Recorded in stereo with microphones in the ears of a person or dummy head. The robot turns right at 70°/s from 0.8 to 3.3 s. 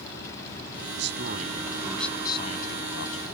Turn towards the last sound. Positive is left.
turn(degrees=95)